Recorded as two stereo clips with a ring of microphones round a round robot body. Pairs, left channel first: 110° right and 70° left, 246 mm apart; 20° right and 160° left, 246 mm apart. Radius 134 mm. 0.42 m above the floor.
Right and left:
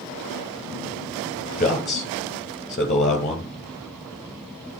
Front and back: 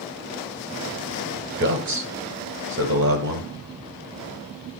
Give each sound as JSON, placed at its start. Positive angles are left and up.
{"t": 1.6, "sound": "a man speaking", "azimuth_deg": -170, "distance_m": 2.0}